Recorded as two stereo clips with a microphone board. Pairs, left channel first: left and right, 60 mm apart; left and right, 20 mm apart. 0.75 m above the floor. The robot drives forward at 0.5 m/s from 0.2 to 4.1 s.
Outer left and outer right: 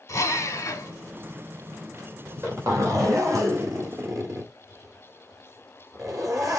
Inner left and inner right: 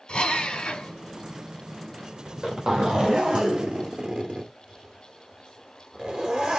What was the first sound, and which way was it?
A drill, 50° left (ahead or behind).